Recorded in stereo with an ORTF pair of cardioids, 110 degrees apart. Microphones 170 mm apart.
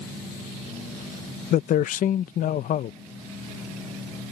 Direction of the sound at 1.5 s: 55° left.